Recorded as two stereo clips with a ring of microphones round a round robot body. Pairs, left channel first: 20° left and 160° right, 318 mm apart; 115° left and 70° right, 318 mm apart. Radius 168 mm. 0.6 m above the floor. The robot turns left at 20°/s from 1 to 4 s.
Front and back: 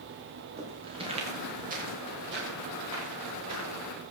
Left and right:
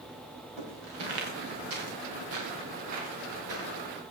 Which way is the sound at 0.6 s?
85° right.